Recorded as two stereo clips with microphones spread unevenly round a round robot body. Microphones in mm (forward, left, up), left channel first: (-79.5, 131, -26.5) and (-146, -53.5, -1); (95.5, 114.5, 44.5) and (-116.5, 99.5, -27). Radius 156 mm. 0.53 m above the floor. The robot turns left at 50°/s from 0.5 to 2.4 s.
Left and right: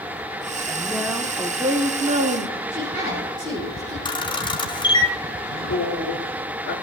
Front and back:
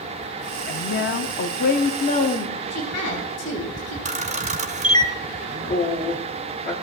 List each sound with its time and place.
0.7 s a woman speaking: 10° left, 0.8 m; by 2.6 s 75° right, 0.8 m
2.7 s a woman speaking: 40° right, 3.5 m
4.0 s a camera shutter: 135° left, 1.4 m
5.5 s a man speaking: 45° left, 4.5 m